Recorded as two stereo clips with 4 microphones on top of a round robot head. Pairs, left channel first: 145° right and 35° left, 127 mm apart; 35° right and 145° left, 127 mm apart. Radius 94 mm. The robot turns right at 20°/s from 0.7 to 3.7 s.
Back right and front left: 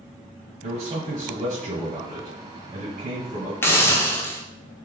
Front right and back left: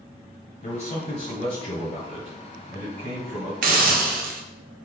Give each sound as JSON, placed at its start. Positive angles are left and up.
{"t": 0.6, "sound": "a man speaking", "azimuth_deg": 0, "distance_m": 1.2}
{"t": 3.6, "sound": "a hiss", "azimuth_deg": 140, "distance_m": 0.5}